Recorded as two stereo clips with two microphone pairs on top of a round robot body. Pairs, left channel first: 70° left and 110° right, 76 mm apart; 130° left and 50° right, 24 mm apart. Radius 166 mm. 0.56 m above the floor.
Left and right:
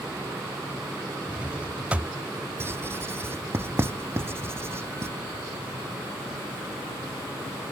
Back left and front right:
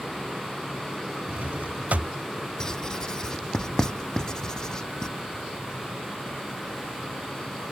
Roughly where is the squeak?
No squeak in this recording.